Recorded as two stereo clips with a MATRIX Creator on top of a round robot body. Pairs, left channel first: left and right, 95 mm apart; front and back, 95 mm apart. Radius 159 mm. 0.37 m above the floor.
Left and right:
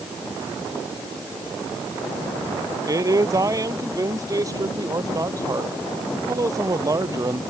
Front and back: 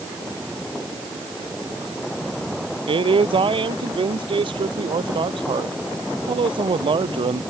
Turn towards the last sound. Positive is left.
turn(degrees=-145)